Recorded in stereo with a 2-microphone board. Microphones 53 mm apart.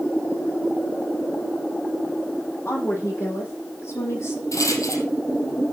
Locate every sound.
2.6 s a woman speaking: 55° left (ahead or behind), 9.5 m; by 4.4 s 60° left (ahead or behind), 9.5 m
4.5 s a rattle: 80° left, 3 m